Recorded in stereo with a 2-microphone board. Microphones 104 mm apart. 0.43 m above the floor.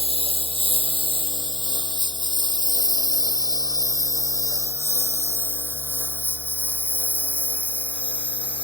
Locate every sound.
0.0 s a lawn mower: 65° right (ahead or behind); by 8.7 s 10° right (ahead or behind)